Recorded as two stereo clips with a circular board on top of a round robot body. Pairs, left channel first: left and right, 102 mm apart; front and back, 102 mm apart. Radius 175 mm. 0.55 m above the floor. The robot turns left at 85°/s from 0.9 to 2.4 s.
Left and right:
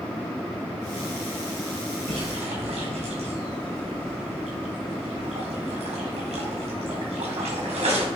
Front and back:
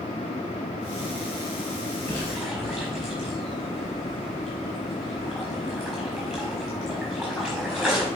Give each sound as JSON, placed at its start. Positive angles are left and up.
{"t": 2.1, "sound": "a splash", "azimuth_deg": -60, "distance_m": 4.5}